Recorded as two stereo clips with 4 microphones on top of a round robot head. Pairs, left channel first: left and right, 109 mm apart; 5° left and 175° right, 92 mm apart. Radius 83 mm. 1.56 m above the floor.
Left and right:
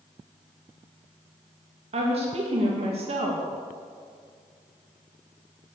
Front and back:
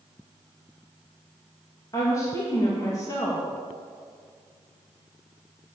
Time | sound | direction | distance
1.9 | a woman speaking | 60° right | 1.9 m